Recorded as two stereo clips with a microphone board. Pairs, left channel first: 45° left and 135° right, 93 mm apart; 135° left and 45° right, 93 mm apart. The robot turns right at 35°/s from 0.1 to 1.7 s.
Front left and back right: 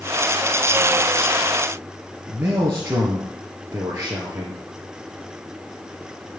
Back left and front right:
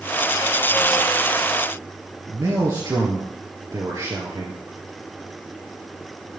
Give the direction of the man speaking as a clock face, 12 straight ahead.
3 o'clock.